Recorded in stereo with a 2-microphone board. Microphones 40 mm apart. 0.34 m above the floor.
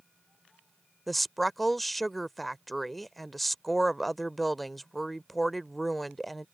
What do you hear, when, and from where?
1.1 s a woman speaking: 5° left (ahead or behind)